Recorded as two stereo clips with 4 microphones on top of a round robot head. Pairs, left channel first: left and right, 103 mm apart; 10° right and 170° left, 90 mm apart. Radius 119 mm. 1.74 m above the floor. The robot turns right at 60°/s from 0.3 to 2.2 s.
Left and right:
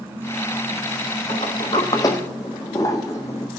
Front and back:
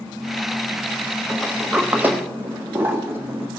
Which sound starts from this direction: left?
A sliding door, at 1.3 s.